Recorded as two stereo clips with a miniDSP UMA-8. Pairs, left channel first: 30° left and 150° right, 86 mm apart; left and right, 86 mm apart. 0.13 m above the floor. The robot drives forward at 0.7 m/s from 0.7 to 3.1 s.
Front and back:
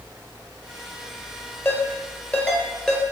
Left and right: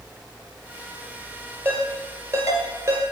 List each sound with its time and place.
1.6 s a ringtone: 30° right, 2.0 m; by 3.0 s 55° right, 1.4 m